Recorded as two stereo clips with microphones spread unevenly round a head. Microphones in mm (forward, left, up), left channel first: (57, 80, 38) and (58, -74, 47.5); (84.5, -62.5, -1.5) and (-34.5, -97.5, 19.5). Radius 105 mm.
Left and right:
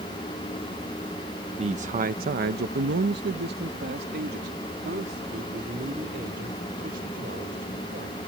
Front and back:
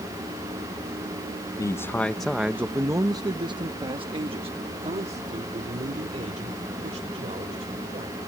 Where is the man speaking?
40° right; by 8.2 s 135° right.